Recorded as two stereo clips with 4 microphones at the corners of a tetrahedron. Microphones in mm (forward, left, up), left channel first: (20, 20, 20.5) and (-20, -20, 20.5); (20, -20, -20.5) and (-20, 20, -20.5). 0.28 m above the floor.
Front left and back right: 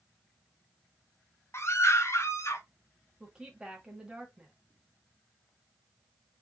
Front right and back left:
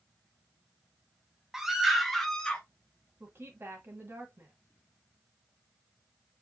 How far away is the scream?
About 1.4 m.